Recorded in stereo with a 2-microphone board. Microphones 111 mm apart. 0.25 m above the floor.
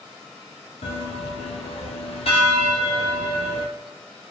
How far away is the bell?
About 1.4 m.